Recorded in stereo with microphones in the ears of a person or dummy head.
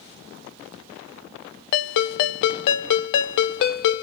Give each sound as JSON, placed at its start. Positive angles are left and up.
{"t": 1.7, "sound": "a ringtone", "side_deg": 60, "distance_m": 0.6}